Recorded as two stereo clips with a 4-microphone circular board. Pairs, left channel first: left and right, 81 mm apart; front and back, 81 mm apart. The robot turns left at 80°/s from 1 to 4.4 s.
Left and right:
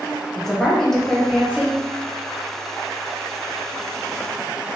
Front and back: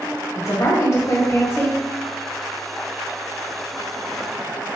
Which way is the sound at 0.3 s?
10° left.